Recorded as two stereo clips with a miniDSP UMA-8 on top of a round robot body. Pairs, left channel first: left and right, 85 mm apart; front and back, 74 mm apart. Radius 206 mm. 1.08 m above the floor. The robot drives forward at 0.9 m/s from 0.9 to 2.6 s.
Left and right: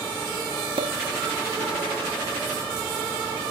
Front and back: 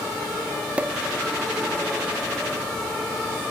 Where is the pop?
105° right; by 1.0 s 110° right.